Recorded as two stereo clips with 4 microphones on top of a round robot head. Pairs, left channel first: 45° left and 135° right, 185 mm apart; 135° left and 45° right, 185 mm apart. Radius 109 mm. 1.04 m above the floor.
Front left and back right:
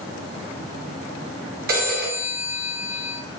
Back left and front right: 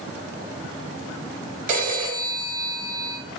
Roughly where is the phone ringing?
Right.